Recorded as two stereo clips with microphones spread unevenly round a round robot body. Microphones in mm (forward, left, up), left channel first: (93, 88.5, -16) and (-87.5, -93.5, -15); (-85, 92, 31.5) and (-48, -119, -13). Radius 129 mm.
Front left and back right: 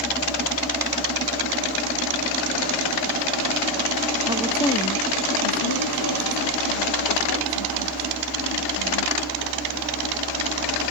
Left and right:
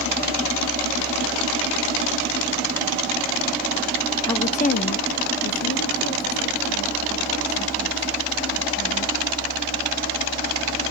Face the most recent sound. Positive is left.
turn(degrees=45)